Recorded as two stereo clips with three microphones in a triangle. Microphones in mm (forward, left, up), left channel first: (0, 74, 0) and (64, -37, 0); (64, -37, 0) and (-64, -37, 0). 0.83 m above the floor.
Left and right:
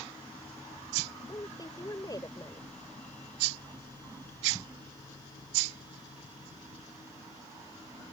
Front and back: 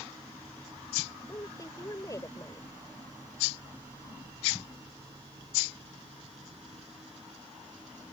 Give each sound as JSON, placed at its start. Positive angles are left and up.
{"t": 1.3, "sound": "a woman speaking", "azimuth_deg": 60}